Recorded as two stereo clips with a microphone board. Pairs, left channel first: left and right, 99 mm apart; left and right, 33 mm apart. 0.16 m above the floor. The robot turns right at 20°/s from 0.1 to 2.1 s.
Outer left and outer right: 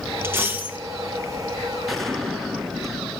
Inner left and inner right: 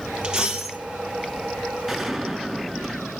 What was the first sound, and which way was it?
A dropped coin, 25° right (ahead or behind).